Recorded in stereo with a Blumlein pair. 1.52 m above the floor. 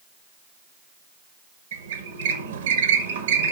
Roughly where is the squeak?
Ahead right.